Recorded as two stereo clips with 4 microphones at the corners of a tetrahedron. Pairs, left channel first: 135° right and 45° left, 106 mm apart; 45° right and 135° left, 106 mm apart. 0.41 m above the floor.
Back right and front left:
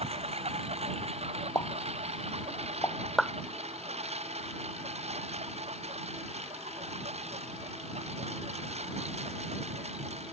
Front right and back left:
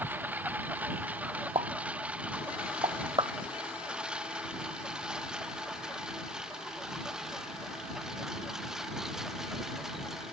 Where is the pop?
165° left.